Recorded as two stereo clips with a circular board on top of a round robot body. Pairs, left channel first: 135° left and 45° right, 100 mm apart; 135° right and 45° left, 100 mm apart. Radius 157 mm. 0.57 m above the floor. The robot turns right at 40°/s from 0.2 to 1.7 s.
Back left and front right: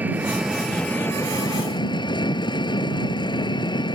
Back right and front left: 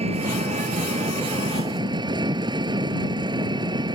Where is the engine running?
30° left; by 4.0 s 90° left.